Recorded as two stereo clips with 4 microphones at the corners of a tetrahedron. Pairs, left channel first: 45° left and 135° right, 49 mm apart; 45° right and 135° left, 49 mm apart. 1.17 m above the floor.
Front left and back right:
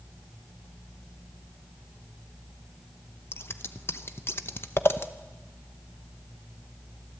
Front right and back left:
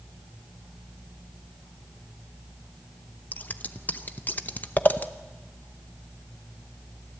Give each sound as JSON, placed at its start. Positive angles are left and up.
{"t": 3.3, "sound": "scissors", "azimuth_deg": 10, "distance_m": 0.8}